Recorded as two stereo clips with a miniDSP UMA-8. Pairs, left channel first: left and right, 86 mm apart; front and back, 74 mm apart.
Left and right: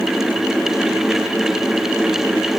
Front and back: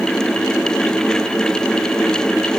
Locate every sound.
Only background noise.